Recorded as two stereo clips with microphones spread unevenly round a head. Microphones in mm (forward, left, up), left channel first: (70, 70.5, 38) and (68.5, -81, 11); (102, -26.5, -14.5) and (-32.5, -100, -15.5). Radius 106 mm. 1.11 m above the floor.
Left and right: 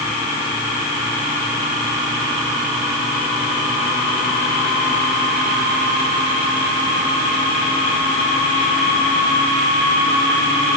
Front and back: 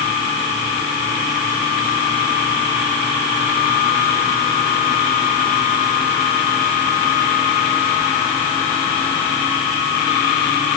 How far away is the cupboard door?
I don't hear a cupboard door.